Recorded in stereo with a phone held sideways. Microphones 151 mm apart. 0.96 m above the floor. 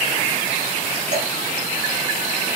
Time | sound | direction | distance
1.1 | dripping | 50° right (ahead or behind) | 5.5 m